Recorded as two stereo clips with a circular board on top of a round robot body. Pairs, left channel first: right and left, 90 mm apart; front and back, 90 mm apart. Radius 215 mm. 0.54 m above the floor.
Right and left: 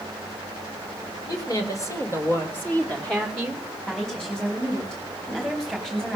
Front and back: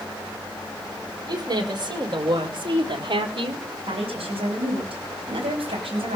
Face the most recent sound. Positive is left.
turn(degrees=-175)